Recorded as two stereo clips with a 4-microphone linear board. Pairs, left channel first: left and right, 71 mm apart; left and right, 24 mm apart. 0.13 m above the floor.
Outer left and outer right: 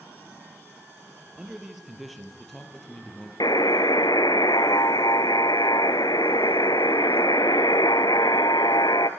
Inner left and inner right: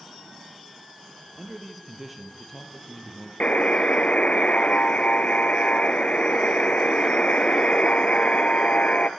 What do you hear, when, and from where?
1.4 s a man speaking: 10° right (ahead or behind), 3.5 m; by 3.3 s 10° left (ahead or behind), 4.5 m
3.4 s a buzzer: 70° left (ahead or behind), 0.9 m